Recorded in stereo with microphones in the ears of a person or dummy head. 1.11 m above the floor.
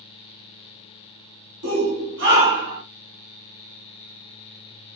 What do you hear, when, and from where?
1.6 s a shout: 75° right (ahead or behind), 1.7 m; by 2.8 s 50° right (ahead or behind), 1.5 m